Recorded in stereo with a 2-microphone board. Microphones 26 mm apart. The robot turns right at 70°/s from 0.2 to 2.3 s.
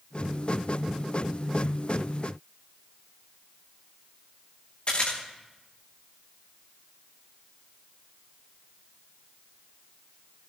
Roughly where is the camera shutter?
Left.